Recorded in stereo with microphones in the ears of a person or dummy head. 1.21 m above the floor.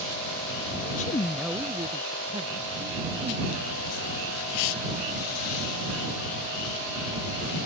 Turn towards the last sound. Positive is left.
turn(degrees=-40)  # may be behind; listen again after turning